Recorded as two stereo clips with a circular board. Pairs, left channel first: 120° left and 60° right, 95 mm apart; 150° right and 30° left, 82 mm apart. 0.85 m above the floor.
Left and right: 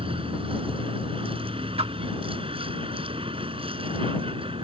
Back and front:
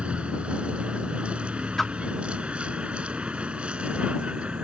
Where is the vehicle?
45° right.